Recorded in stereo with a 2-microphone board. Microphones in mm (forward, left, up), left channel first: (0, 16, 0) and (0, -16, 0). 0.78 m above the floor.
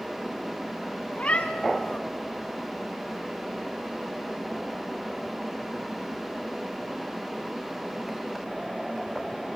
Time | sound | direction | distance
1.1 | a cat meowing | 35° left (ahead or behind) | 1.5 m